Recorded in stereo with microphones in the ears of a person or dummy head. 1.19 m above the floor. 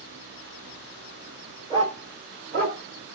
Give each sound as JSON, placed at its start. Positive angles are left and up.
{"t": 1.7, "sound": "a dog barking", "side_deg": -20, "distance_m": 1.7}